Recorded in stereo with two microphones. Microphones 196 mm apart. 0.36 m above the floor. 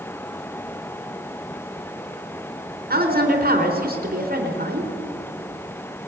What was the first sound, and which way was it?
A woman speaking, 50° right (ahead or behind).